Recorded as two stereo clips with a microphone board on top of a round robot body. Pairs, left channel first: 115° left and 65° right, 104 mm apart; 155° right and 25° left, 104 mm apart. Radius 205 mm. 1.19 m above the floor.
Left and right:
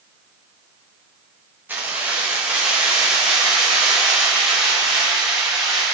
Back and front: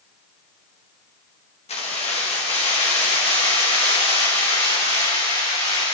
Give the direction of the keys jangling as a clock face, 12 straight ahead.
5 o'clock.